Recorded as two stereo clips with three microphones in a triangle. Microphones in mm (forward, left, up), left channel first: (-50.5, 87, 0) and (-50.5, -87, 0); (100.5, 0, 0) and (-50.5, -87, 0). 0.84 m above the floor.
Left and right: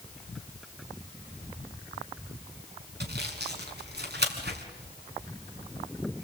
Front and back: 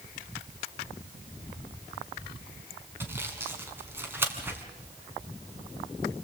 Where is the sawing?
70° right, 4 m.